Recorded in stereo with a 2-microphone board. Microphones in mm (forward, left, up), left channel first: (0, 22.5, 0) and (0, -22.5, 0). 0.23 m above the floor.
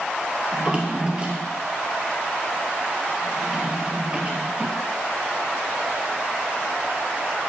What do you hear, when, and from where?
0.5 s a drawer: 25° right (ahead or behind), 1.3 m